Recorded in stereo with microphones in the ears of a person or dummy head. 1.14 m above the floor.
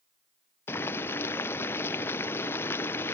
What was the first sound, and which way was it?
Boiling, 10° left (ahead or behind).